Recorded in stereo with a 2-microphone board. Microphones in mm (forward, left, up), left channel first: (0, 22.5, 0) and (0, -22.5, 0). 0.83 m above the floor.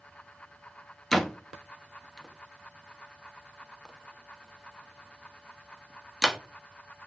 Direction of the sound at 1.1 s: 5° left (ahead or behind).